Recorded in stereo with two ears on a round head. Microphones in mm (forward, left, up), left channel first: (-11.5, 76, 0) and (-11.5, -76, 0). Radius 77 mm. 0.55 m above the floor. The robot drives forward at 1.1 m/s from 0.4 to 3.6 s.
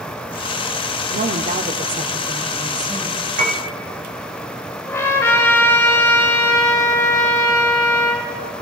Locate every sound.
1.1 s a woman speaking: 50° right (ahead or behind), 1.3 m; by 3.3 s 20° right (ahead or behind), 3 m
3.4 s a piano: 50° right (ahead or behind), 3.5 m
4.9 s a trumpet: 15° left (ahead or behind), 3 m